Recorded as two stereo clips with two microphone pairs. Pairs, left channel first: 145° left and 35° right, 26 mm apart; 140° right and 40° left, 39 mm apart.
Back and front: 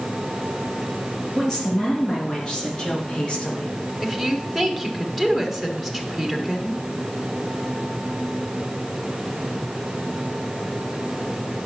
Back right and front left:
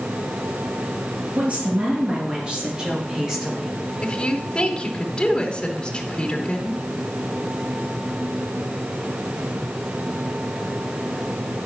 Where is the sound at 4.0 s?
140° right, 1.1 m.